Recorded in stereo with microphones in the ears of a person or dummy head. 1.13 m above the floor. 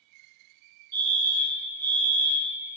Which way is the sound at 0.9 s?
15° right (ahead or behind).